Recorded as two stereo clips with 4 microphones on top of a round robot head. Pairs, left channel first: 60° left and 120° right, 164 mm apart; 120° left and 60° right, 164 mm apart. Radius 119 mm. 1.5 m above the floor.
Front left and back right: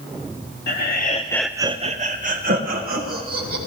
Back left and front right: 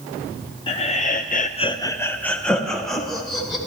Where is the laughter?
65° left, 0.8 m; by 3.6 s 150° right, 2.5 m.